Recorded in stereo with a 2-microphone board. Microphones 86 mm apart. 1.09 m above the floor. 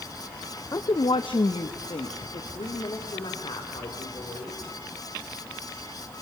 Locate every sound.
0.7 s a woman speaking: 40° left (ahead or behind), 0.5 m; by 4.6 s 85° left, 4 m